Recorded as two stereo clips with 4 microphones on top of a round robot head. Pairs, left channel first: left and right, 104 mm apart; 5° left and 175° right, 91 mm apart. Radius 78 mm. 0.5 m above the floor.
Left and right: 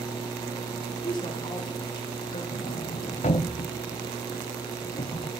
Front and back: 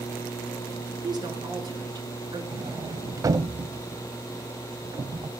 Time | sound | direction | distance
1.0 | a woman speaking | 145° left | 8 m
2.5 | a sliding door | 130° left | 0.6 m